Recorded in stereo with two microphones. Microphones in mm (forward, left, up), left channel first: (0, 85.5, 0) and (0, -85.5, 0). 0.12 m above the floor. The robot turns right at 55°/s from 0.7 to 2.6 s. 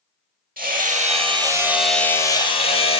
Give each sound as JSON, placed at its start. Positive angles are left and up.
{"t": 0.6, "sound": "hammering", "azimuth_deg": -65, "distance_m": 2.0}